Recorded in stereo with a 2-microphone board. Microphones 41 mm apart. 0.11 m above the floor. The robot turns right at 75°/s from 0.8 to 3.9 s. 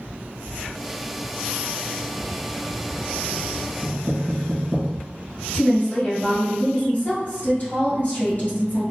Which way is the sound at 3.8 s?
Centre (ahead or behind).